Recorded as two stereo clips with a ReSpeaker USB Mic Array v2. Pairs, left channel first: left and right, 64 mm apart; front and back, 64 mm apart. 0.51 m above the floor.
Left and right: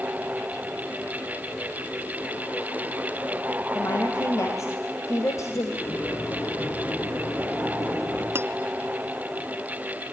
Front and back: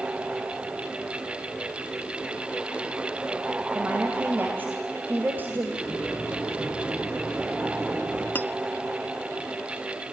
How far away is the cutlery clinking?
About 0.7 m.